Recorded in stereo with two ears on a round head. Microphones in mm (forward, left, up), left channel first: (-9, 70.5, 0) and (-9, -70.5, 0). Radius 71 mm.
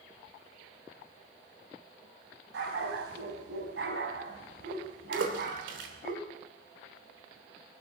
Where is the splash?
85° right, 3 m.